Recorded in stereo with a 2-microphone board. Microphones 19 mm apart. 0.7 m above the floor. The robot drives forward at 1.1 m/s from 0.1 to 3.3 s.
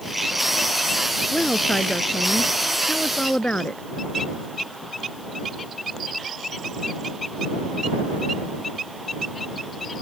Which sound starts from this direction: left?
A woman speaking, at 1.3 s.